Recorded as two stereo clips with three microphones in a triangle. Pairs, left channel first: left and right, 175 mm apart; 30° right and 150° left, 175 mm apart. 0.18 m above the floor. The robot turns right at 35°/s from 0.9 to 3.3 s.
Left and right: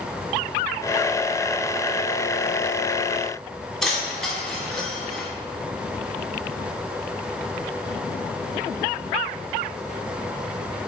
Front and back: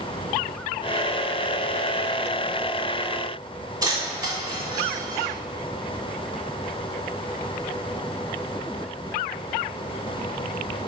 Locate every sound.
3.8 s keys jangling: 175° left, 0.9 m